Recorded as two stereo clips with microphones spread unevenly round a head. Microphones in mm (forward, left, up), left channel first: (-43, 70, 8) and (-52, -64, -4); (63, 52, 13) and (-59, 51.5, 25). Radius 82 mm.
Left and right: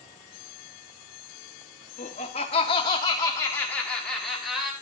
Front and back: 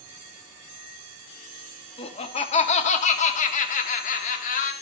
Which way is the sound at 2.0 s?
35° left.